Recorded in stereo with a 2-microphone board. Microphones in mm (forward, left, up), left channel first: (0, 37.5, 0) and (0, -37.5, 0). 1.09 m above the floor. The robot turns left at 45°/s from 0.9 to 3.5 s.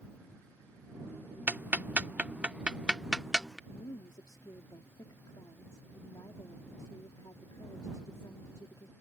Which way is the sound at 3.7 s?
65° left (ahead or behind).